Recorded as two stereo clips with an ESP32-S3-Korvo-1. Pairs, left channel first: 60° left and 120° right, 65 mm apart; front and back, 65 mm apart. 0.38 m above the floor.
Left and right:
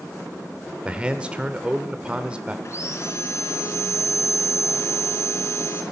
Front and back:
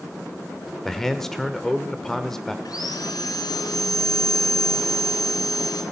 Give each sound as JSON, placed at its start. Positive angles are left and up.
{"t": 0.8, "sound": "a man speaking", "azimuth_deg": -75, "distance_m": 0.8}
{"t": 2.6, "sound": "sawing", "azimuth_deg": 15, "distance_m": 1.6}